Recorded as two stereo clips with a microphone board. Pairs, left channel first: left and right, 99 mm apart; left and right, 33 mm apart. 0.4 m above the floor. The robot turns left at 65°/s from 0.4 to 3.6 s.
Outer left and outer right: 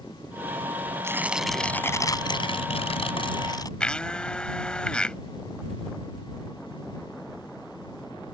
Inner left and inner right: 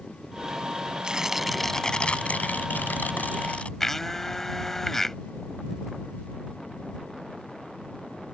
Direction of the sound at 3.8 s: 10° left (ahead or behind).